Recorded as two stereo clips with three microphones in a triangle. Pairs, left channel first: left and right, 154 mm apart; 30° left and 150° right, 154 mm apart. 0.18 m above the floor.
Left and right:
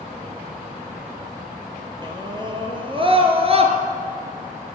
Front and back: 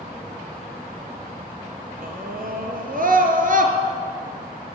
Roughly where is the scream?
Behind right.